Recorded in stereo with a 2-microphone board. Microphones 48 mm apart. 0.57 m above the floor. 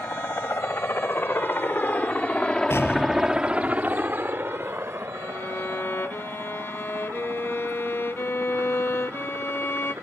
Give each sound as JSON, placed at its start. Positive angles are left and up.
{"t": 0.0, "sound": "a helicopter", "side_deg": 65}
{"t": 2.7, "sound": "an explosion", "side_deg": 60}
{"t": 5.1, "sound": "a violin", "side_deg": 65}